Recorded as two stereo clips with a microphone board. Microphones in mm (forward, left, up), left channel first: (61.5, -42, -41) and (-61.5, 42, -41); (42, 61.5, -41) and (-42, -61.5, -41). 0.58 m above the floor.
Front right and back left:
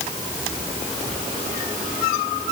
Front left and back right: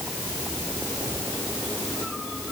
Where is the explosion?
I don't hear an explosion.